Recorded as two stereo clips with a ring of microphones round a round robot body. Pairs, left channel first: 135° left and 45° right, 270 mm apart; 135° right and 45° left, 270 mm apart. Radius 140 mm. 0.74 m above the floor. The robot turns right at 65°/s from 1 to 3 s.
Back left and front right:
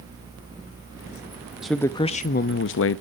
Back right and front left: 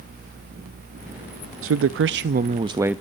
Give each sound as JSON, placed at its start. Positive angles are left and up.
{"t": 1.6, "sound": "a man speaking", "azimuth_deg": 45, "distance_m": 0.6}